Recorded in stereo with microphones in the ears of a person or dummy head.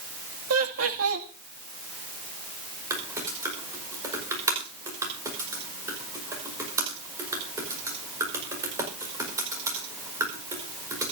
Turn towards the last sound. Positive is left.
turn(degrees=-20)  # may be behind; listen again after turning